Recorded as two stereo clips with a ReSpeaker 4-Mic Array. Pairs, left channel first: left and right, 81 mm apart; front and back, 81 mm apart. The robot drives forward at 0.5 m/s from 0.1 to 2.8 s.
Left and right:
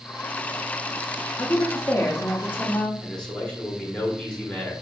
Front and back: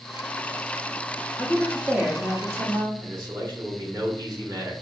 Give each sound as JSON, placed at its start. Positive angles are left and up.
{"t": 1.4, "sound": "a woman speaking", "azimuth_deg": 80, "distance_m": 0.8}
{"t": 3.0, "sound": "a man speaking", "azimuth_deg": 165, "distance_m": 1.3}